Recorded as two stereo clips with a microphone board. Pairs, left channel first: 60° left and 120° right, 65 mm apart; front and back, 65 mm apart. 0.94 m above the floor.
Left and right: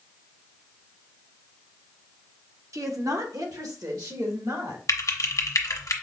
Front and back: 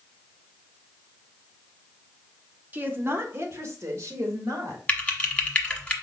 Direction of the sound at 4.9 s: 65° left.